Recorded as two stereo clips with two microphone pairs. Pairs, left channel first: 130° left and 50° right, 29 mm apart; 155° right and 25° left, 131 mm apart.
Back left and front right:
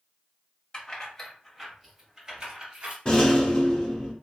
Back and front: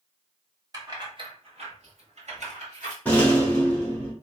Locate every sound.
0.7 s keys jangling: 75° left, 1.0 m; by 3.0 s 5° left, 1.6 m
3.0 s a rattle: 135° left, 1.1 m